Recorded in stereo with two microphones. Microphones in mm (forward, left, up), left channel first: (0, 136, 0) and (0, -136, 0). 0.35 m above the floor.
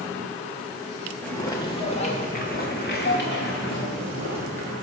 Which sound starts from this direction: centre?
Footsteps, at 1.2 s.